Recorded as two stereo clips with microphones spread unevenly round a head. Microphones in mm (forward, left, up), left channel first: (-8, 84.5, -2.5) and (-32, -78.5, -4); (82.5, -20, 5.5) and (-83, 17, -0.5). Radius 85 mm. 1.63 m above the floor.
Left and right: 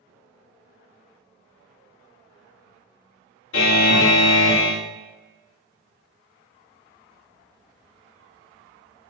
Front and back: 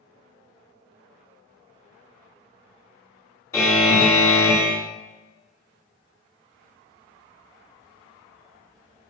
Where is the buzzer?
60° left, 2 m.